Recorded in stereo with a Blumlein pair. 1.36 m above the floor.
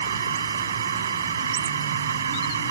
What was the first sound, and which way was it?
A machine running, 65° right.